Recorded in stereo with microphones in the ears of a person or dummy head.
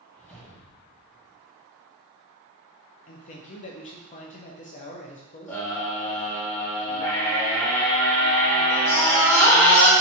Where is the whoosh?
5° left (ahead or behind), 1.2 m.